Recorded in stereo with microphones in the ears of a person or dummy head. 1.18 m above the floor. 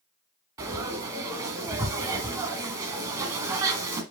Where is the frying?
20° right (ahead or behind), 1.6 m.